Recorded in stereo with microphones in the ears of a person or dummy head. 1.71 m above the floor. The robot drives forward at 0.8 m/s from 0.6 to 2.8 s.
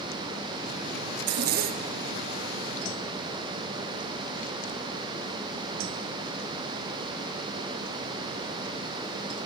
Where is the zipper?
55° right (ahead or behind), 0.8 m; by 2.0 s 30° right (ahead or behind), 1.3 m.